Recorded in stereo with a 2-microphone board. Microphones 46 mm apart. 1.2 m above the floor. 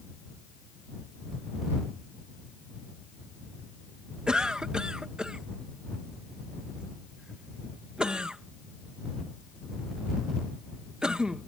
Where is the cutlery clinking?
No cutlery clinking in this recording.